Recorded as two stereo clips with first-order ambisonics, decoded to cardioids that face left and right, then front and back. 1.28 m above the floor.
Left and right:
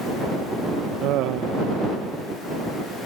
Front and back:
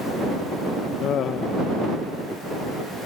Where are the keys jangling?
No keys jangling in this recording.